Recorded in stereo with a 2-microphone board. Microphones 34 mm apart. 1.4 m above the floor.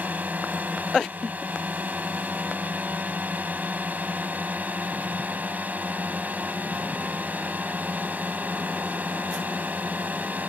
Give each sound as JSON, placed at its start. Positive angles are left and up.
{"t": 0.0, "sound": "a drone", "side_deg": -60}